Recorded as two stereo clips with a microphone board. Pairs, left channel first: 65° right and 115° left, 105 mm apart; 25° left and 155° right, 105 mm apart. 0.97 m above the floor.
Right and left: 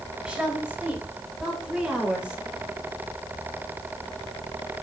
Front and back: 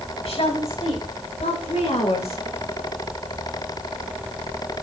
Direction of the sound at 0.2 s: 30° left.